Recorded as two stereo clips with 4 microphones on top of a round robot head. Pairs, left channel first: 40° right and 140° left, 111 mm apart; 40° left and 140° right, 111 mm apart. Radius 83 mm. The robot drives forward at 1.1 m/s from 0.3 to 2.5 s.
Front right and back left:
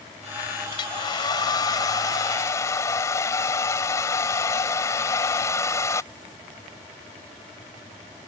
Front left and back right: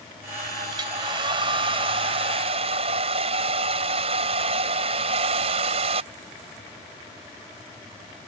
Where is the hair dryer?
90° right; by 6.1 s 105° right.